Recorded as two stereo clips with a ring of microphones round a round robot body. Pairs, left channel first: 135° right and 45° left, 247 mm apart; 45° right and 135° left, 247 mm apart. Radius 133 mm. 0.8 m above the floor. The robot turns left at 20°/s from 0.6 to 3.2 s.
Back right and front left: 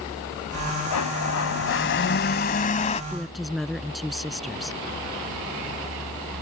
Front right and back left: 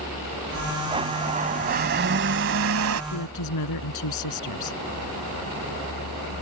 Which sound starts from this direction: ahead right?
A woman speaking, at 3.1 s.